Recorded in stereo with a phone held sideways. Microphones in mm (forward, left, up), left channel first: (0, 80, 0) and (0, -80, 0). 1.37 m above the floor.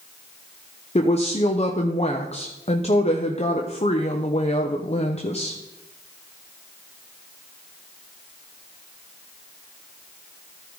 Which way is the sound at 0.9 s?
40° left (ahead or behind).